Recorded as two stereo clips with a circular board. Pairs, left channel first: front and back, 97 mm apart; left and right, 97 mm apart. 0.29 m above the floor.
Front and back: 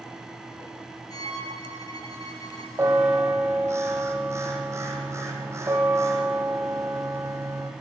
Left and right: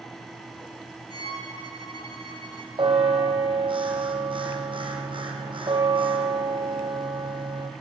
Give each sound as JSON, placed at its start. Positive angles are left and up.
{"t": 1.1, "sound": "a violin", "azimuth_deg": 45, "distance_m": 5.5}
{"t": 2.8, "sound": "a bell", "azimuth_deg": -120, "distance_m": 4.0}